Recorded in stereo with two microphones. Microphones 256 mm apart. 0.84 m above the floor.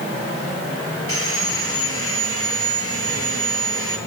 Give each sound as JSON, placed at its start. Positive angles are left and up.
{"t": 1.1, "sound": "sawing", "side_deg": 60, "distance_m": 7.0}